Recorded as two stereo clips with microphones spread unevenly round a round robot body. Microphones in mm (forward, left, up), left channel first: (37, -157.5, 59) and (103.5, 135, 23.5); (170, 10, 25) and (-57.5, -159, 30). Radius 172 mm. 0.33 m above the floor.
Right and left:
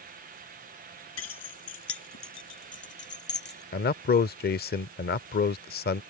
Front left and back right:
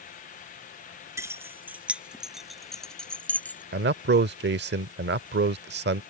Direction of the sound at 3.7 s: 150° right.